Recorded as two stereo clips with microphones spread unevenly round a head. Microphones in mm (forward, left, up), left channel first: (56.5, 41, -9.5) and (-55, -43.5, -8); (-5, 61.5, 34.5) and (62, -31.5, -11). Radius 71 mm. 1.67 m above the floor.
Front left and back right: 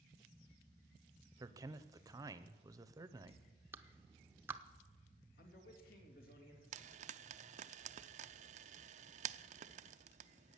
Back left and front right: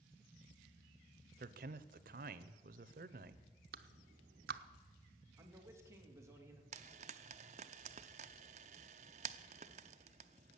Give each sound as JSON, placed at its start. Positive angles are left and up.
{"t": 1.4, "sound": "a man speaking", "azimuth_deg": -75, "distance_m": 0.8}
{"t": 3.7, "sound": "a clap", "azimuth_deg": -70, "distance_m": 0.8}
{"t": 5.4, "sound": "a man speaking", "azimuth_deg": 15, "distance_m": 3.0}
{"t": 6.7, "sound": "frying", "azimuth_deg": -105, "distance_m": 0.5}